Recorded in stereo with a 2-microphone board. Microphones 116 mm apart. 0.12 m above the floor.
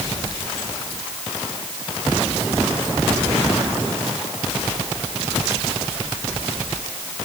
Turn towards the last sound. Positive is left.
No sound to turn to.